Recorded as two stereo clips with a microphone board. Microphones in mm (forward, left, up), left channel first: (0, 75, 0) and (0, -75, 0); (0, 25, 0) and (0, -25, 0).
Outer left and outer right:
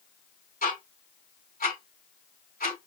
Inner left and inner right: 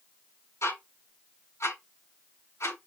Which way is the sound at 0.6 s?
70° left (ahead or behind).